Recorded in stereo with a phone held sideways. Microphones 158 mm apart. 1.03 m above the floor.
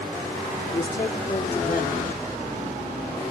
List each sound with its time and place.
0.7 s a woman speaking: 70° left (ahead or behind), 3 m